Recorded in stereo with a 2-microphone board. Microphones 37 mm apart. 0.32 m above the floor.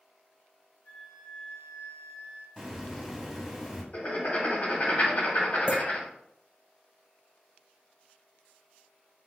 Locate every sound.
0.8 s a flute: 60° left (ahead or behind), 2 m
2.6 s a hiss: 5° right (ahead or behind), 1.1 m
3.9 s writing: 45° left (ahead or behind), 1.9 m
5.7 s a clink: 40° right (ahead or behind), 1.1 m